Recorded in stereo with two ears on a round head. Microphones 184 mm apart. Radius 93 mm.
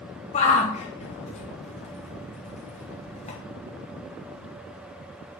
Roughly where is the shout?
Left.